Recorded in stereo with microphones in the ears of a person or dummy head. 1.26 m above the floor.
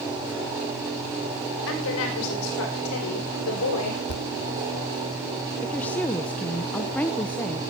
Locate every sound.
1.7 s a woman speaking: 75° left (ahead or behind), 4.5 m; by 4.0 s 85° left, 5.5 m
4.1 s a thud: 65° left (ahead or behind), 2 m
5.6 s a woman speaking: 10° left (ahead or behind), 0.8 m